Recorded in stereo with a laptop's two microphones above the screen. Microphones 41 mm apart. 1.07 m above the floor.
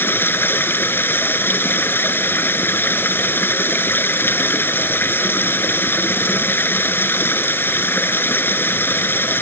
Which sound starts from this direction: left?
Running water, at 0.0 s.